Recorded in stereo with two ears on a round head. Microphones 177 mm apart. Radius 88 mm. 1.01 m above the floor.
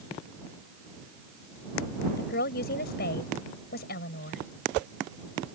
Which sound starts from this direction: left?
A woman speaking, at 2.2 s.